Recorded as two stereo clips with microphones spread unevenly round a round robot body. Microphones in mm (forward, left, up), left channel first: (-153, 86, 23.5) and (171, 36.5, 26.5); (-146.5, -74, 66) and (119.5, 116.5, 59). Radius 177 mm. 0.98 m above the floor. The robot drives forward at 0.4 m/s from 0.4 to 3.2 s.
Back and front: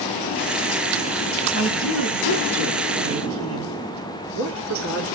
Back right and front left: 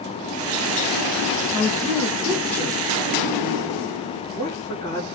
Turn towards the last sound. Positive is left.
turn(degrees=135)